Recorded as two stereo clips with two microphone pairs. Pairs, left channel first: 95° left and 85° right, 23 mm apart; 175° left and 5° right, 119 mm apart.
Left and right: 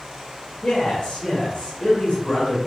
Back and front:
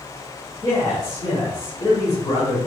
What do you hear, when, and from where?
0.6 s a man speaking: 130° left, 2 m